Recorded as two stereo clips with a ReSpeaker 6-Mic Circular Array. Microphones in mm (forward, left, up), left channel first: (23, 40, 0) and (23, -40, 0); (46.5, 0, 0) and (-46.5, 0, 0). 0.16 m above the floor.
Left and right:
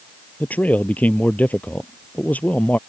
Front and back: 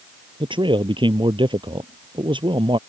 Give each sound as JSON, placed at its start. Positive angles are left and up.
{"t": 0.4, "sound": "a man speaking", "azimuth_deg": 160}